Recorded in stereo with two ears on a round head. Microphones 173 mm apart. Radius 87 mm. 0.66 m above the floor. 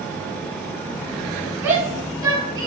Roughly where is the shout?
Centre.